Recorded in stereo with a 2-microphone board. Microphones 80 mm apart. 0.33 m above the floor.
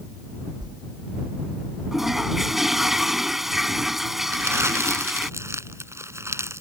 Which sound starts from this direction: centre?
A toilet flushing, at 1.9 s.